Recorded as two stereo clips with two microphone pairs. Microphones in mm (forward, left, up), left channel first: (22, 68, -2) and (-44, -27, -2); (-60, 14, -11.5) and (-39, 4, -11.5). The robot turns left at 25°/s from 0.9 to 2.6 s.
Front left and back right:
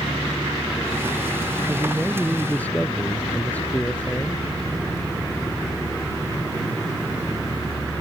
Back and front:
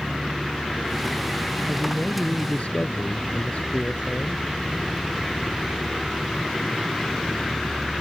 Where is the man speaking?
155° left; by 4.4 s 130° left.